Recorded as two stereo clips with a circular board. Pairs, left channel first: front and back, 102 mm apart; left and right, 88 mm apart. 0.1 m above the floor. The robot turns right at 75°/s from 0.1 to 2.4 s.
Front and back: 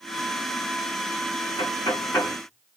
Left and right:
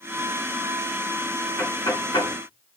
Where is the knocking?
25° left, 7.5 m; by 2.4 s 80° left, 7.5 m.